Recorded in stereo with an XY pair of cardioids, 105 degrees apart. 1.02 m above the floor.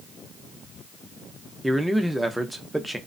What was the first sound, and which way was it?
A man speaking, 5° right.